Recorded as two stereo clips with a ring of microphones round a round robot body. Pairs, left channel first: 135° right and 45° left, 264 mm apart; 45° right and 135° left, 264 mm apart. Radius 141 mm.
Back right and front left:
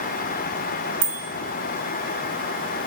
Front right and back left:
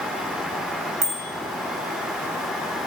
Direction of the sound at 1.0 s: 70° left.